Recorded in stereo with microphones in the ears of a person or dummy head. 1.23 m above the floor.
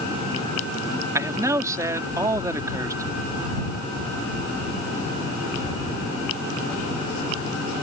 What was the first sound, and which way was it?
A man speaking, 10° right (ahead or behind).